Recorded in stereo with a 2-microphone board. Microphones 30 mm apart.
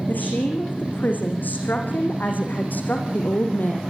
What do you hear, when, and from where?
0.1 s a woman speaking: 80° left, 8.5 m; by 3.8 s 75° left (ahead or behind), 5 m